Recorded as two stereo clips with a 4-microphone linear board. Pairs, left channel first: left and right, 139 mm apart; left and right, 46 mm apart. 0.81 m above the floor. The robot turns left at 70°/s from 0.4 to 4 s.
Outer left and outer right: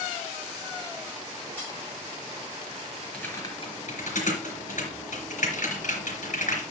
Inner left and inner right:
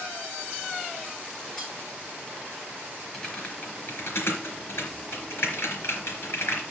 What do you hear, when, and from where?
1.6 s cutlery clinking: 10° left (ahead or behind), 5 m; by 1.7 s 25° left (ahead or behind), 5 m
3.1 s typing on a keyboard: 10° left (ahead or behind), 3.5 m; by 6.6 s 65° left (ahead or behind), 3.5 m